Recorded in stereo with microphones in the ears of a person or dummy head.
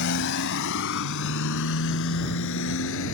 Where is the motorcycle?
65° left (ahead or behind); by 3.1 s 75° left (ahead or behind).